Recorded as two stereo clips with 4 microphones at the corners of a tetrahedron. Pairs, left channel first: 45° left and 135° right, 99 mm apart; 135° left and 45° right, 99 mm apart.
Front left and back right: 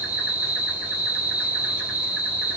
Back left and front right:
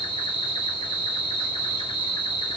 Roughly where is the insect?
Behind.